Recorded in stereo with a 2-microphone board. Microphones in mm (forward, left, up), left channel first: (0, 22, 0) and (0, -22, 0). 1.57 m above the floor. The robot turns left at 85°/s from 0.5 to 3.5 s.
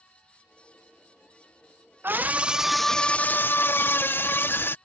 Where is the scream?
120° right; by 4.8 s 115° left.